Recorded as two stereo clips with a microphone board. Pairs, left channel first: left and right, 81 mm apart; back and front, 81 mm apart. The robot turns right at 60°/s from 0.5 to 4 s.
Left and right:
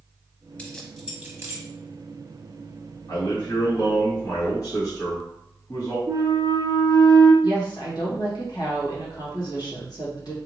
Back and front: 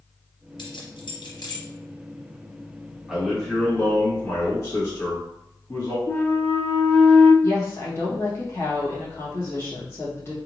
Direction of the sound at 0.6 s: 165° left.